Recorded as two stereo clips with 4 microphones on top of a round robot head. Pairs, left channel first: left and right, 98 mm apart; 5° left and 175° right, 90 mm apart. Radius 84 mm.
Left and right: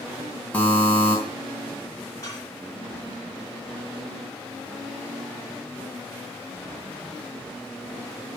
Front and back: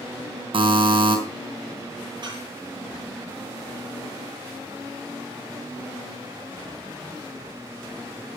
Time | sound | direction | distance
0.5 | a buzzer | 165° left | 3.5 m
2.2 | dishes clattering | 150° left | 9 m